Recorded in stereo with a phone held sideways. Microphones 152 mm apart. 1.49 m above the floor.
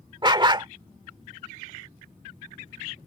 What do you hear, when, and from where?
0.2 s a dog barking: 30° right (ahead or behind)